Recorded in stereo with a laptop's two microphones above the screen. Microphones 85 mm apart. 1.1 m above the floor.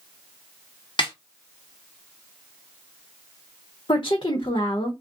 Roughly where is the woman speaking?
Left.